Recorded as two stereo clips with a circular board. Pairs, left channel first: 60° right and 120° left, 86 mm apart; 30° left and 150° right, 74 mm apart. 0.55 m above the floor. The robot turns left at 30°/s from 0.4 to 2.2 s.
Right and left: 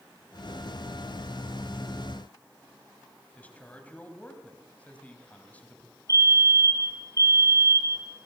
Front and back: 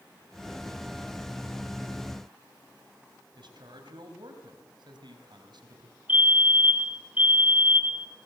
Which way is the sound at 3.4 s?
135° right.